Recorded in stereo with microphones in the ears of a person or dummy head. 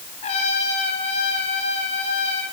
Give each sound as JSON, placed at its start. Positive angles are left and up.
{"t": 0.2, "sound": "a trumpet", "side_deg": 40, "distance_m": 9.5}